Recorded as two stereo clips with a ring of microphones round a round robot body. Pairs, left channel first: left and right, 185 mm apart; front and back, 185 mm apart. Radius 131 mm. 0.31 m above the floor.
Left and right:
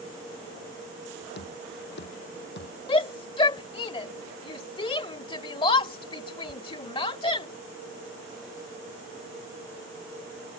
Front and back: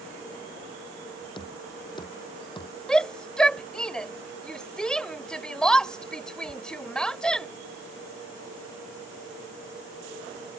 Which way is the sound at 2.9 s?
80° left.